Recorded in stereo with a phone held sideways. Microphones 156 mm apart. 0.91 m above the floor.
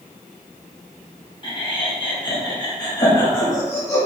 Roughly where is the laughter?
Left.